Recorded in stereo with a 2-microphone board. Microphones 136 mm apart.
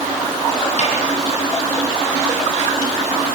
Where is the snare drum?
55° left (ahead or behind), 6 m.